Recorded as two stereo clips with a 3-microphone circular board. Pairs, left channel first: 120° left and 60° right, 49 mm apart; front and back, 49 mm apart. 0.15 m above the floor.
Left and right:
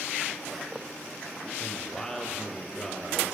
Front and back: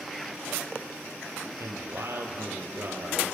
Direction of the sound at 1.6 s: 170° right.